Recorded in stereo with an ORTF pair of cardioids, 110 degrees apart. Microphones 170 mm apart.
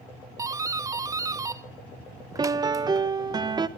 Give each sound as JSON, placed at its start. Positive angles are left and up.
{"t": 0.4, "sound": "a doorbell", "azimuth_deg": -20, "distance_m": 1.0}
{"t": 2.4, "sound": "a piano", "azimuth_deg": -25, "distance_m": 1.3}